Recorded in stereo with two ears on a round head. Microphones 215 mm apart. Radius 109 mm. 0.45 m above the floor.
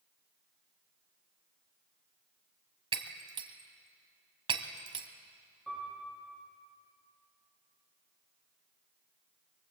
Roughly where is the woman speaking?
I don't hear a woman speaking.